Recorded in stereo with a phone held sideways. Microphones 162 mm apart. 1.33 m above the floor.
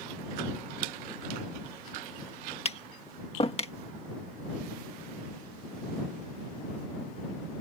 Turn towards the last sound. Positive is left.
turn(degrees=40)  # may be behind; listen again after turning